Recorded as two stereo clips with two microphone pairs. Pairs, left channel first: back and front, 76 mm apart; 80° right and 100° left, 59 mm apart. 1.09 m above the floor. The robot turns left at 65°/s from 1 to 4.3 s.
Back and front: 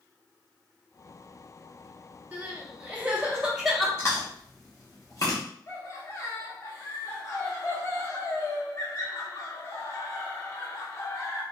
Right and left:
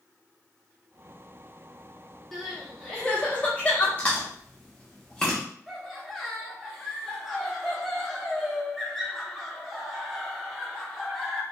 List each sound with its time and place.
2.3 s crying: 10° left, 0.7 m; by 3.9 s 90° right, 0.7 m
4.0 s chewing: 135° right, 0.8 m; by 5.4 s 155° right, 0.8 m
5.7 s laughter: 175° right, 0.9 m